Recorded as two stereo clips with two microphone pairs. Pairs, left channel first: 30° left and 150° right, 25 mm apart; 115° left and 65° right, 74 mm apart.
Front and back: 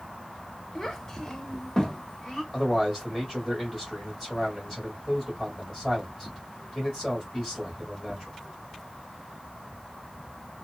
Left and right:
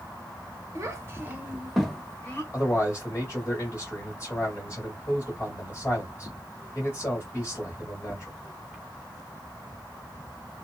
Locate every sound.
0.8 s a child speaking: 35° right, 1.0 m; by 2.4 s 85° left, 0.7 m
2.5 s a man speaking: 85° left, 1.4 m